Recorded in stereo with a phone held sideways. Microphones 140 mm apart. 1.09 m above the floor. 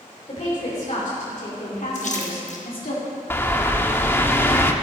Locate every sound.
0.3 s a woman speaking: 55° left (ahead or behind), 3.5 m; by 3.0 s 85° left, 2.5 m
1.9 s a splash: 55° left (ahead or behind), 1.5 m
3.3 s a bird: 15° left (ahead or behind), 0.8 m